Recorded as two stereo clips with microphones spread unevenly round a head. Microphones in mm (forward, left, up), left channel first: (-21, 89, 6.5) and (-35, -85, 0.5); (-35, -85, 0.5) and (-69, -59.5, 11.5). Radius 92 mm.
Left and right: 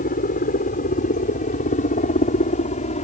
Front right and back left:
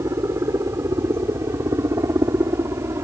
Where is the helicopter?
125° left; by 3.1 s 135° left.